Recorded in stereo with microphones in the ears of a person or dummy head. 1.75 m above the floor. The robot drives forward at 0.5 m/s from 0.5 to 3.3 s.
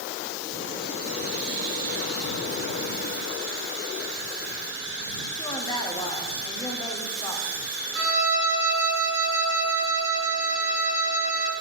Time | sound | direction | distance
5.3 | a woman speaking | 20° left (ahead or behind) | 0.8 m
8.0 | a violin | 80° right | 2.5 m